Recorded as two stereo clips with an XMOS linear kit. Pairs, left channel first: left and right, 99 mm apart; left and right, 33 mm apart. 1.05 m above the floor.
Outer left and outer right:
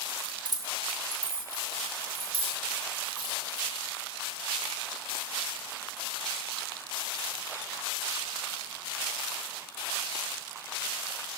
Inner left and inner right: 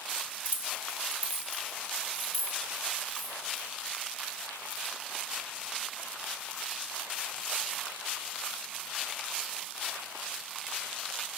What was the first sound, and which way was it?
Keys jangling, 50° right (ahead or behind).